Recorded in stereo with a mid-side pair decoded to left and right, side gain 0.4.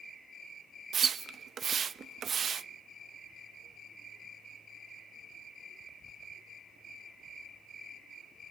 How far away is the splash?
About 0.7 m.